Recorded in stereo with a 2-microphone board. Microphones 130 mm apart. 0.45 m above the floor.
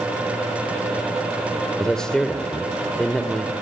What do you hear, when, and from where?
1.8 s a man speaking: 5° left (ahead or behind), 1.8 m